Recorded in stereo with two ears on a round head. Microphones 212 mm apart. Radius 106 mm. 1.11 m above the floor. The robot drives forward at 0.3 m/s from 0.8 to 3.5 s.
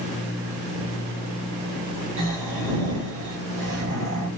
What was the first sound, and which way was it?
Snoring, 60° right (ahead or behind).